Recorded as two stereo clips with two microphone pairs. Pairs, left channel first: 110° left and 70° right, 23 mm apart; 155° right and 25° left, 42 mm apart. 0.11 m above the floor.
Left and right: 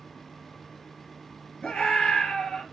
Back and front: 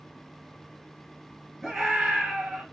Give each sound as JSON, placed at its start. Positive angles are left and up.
{"t": 1.6, "sound": "a scream", "azimuth_deg": 120, "distance_m": 2.0}